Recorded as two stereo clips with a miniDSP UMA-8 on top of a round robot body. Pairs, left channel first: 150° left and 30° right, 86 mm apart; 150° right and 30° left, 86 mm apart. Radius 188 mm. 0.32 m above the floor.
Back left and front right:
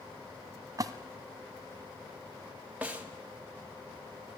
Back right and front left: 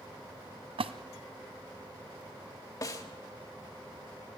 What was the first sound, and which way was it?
A splash, 20° left.